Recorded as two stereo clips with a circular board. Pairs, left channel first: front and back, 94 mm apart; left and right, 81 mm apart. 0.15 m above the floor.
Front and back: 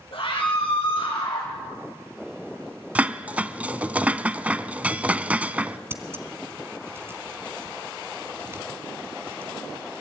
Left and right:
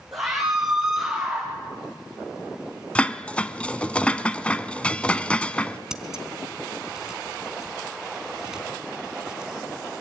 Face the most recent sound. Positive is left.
turn(degrees=-165)